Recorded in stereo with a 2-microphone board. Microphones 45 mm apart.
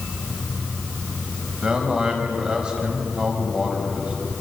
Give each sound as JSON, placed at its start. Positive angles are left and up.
{"t": 1.6, "sound": "a man speaking", "side_deg": -20, "distance_m": 5.0}